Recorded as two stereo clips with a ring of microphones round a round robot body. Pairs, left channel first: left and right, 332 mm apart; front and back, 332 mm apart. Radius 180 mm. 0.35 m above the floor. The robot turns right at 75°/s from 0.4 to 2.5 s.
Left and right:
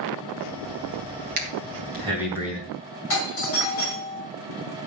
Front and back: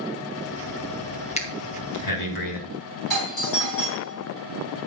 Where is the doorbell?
40° left, 5.5 m.